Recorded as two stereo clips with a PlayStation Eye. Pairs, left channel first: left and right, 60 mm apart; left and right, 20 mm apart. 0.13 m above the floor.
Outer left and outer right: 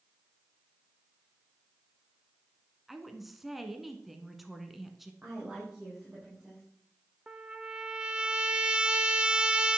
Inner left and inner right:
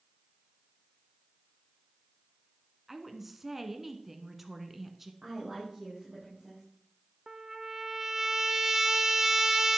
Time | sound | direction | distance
2.9 | a woman speaking | 5° right (ahead or behind) | 1.2 m
5.2 | a woman speaking | 10° right (ahead or behind) | 5.5 m
7.3 | a trumpet | 15° right (ahead or behind) | 0.9 m